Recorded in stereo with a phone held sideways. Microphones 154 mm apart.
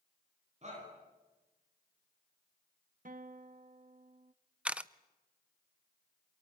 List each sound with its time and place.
0.6 s a shout: 45° right (ahead or behind), 9.5 m
3.0 s a guitar: 60° right (ahead or behind), 1.0 m
4.7 s a camera shutter: 10° right (ahead or behind), 0.6 m